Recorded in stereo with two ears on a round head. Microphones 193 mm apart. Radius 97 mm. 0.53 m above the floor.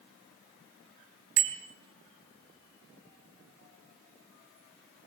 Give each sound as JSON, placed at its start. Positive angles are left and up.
{"t": 1.4, "sound": "a bicycle bell", "side_deg": -65, "distance_m": 2.5}